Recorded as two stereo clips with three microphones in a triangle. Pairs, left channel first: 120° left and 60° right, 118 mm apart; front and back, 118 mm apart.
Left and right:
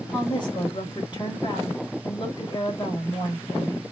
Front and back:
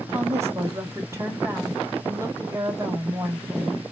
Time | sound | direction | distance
0.1 | a woman speaking | 125° left | 1.9 m